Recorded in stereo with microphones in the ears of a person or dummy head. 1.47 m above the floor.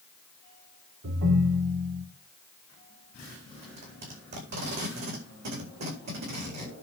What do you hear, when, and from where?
1.0 s a ringtone: 65° right (ahead or behind), 2.5 m
3.6 s tape being pulled: 50° right (ahead or behind), 4.5 m